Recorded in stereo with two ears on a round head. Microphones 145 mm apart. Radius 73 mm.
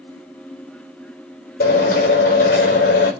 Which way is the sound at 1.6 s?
60° left (ahead or behind).